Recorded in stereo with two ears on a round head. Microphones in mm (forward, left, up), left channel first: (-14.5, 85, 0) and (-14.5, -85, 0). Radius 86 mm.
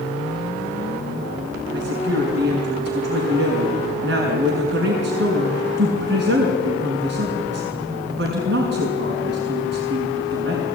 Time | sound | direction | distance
1.7 | a woman speaking | 65° right (ahead or behind) | 5.5 m